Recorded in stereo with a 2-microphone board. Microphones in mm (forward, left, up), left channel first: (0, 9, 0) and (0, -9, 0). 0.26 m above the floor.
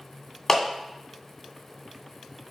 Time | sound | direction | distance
0.5 | a clap | 15° left (ahead or behind) | 2.0 m